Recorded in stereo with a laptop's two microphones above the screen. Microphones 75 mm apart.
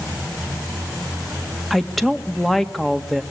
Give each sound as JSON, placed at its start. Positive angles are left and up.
{"t": 1.7, "sound": "a woman speaking", "side_deg": 5, "distance_m": 1.7}